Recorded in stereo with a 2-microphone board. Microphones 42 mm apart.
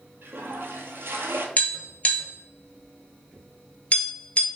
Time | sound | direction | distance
0.2 | a toilet flushing | 65° right (ahead or behind) | 0.8 m
1.6 | tapping | 35° left (ahead or behind) | 1.1 m